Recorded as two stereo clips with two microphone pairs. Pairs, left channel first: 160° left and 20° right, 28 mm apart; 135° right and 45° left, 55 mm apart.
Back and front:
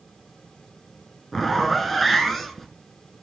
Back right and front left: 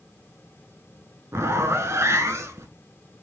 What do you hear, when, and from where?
1.3 s a zipper: 70° left, 0.6 m